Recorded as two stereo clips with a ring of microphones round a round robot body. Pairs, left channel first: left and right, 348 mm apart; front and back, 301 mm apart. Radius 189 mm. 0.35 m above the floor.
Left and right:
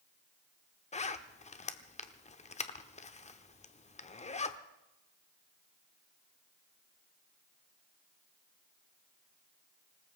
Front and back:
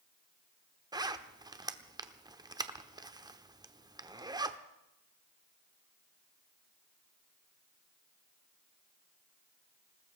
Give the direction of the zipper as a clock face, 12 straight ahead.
8 o'clock.